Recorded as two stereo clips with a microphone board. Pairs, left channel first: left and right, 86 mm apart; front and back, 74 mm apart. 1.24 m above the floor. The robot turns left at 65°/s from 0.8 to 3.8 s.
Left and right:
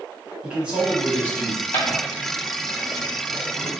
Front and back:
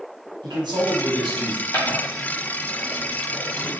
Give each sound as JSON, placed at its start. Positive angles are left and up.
{"t": 0.4, "sound": "a man speaking", "azimuth_deg": -170, "distance_m": 1.3}
{"t": 1.7, "sound": "footsteps", "azimuth_deg": 40, "distance_m": 1.7}